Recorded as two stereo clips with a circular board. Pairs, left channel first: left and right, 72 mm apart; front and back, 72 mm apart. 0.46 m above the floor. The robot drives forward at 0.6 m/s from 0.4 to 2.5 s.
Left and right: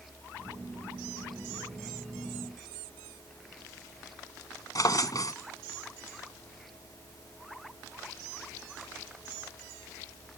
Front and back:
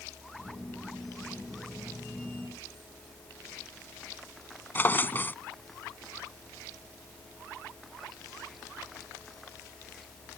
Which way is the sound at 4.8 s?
60° left.